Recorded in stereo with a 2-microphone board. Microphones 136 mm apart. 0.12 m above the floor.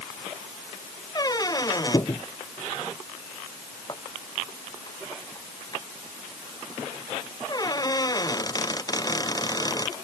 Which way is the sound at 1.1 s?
25° left (ahead or behind).